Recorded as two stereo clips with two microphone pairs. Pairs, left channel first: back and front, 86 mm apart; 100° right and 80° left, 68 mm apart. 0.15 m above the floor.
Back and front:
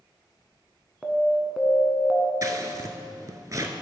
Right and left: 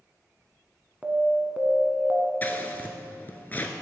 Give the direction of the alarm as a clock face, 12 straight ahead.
10 o'clock.